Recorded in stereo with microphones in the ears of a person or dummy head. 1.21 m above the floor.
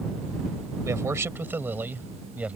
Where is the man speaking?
15° right (ahead or behind); by 2.5 s 10° right (ahead or behind).